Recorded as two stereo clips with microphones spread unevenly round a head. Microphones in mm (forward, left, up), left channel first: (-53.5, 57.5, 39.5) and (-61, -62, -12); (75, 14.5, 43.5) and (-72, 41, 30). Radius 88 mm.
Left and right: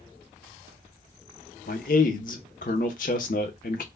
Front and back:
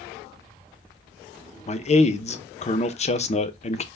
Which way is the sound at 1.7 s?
40° left.